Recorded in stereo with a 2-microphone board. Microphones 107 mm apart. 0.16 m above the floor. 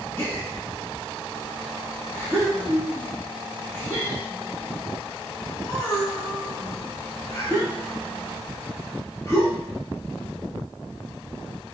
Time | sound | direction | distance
0.2 | a gasp | 25° left (ahead or behind) | 0.9 m